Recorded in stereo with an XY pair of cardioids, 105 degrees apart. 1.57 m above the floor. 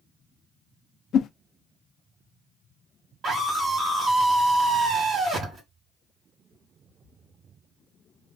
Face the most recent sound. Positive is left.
turn(degrees=-55)